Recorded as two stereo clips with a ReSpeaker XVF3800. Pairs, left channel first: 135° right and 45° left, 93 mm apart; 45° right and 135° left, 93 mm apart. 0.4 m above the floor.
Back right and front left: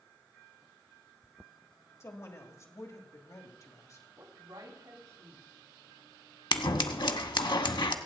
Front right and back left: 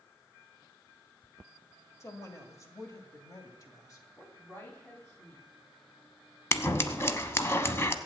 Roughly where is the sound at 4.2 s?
Ahead.